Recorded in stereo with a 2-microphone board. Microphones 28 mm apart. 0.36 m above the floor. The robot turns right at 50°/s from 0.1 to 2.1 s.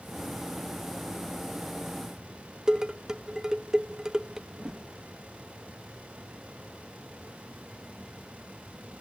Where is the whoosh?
20° right (ahead or behind), 3 m.